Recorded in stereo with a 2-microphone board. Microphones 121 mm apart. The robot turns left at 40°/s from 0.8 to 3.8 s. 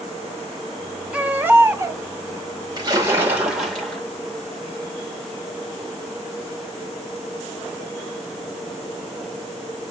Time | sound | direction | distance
1.1 | a baby crying | 15° right | 0.6 m
2.8 | a splash | 145° right | 1.4 m